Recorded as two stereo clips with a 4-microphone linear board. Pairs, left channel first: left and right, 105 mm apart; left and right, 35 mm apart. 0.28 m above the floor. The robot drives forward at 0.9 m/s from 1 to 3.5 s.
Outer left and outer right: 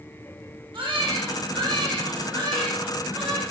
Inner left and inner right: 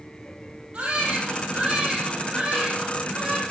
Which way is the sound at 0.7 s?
50° right (ahead or behind).